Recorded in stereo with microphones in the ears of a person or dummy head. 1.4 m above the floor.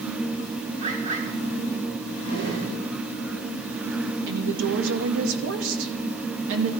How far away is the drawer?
About 7.5 m.